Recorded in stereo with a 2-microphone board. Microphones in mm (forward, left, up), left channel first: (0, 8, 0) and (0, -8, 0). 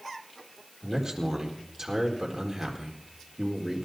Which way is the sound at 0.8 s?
40° right (ahead or behind).